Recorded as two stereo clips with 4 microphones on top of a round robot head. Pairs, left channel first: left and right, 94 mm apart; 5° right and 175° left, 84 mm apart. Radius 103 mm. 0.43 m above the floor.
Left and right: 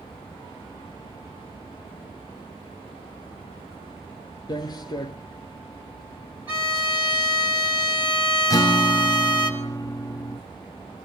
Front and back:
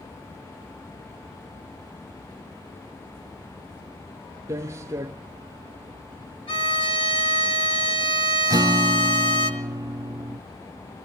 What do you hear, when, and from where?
4.5 s footsteps: 125° left, 0.5 m
6.5 s a violin: 20° right, 3 m
8.5 s a guitar: 140° left, 0.7 m